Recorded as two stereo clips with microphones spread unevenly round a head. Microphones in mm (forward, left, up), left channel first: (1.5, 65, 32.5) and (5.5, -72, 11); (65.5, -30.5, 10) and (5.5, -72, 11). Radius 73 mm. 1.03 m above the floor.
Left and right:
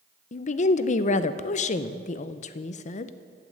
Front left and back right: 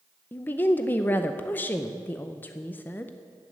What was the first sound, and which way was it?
A woman speaking, 90° left.